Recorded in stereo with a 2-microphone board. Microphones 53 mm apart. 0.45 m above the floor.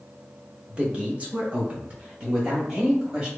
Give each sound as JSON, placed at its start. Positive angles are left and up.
{"t": 0.7, "sound": "a man speaking", "side_deg": -25, "distance_m": 0.8}